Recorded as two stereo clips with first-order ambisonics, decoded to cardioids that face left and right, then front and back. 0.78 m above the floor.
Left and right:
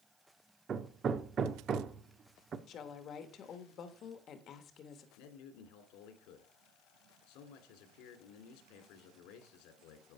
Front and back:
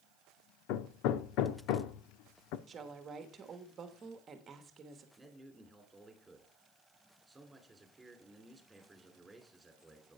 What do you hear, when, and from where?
0.7 s hammering: 25° right, 0.7 m
2.7 s a woman speaking: 125° left, 1.3 m
5.2 s a man speaking: 100° left, 2.5 m